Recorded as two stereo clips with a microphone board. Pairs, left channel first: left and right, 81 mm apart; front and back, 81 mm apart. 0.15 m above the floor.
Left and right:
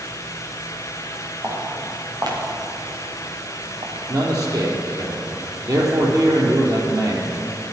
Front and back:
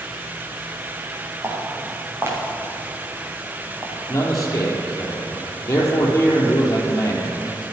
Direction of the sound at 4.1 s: 50° right.